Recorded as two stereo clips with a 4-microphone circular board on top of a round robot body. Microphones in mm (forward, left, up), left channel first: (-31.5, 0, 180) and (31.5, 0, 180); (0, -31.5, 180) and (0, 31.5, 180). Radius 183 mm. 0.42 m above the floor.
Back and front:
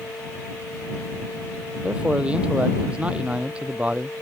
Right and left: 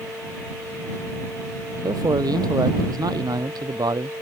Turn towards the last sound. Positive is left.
turn(degrees=70)